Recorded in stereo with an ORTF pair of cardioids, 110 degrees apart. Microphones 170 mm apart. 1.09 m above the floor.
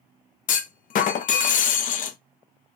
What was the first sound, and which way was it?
A clunk, 55° left.